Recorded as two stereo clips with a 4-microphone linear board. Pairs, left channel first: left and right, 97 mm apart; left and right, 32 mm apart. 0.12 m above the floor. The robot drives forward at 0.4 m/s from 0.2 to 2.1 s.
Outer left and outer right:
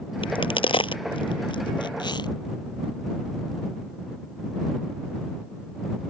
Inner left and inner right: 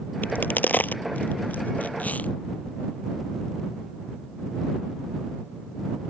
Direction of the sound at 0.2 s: 65° left (ahead or behind).